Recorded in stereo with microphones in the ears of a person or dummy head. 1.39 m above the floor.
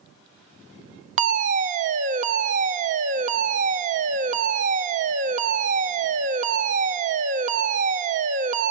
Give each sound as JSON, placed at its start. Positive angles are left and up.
{"t": 1.2, "sound": "a fire alarm", "side_deg": -30, "distance_m": 0.7}